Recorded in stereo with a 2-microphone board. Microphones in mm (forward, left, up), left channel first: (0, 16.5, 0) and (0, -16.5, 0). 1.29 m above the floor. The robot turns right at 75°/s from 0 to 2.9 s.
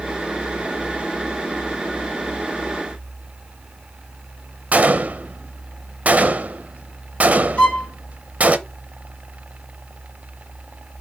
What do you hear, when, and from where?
4.7 s a gunshot: 50° right (ahead or behind), 0.6 m
7.6 s a violin: 35° left (ahead or behind), 2.5 m